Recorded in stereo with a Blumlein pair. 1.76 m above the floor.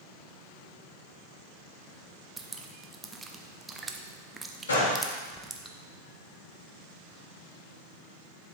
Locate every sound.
2.4 s dripping: 10° right, 0.6 m
4.7 s a gunshot: 70° left, 1.7 m